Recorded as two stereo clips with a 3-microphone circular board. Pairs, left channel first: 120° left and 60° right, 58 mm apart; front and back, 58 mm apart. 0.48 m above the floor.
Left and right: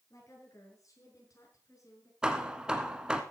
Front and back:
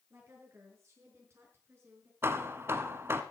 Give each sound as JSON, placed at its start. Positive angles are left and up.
{"t": 0.1, "sound": "a woman speaking", "azimuth_deg": 140, "distance_m": 6.5}
{"t": 2.2, "sound": "hammering", "azimuth_deg": -135, "distance_m": 1.3}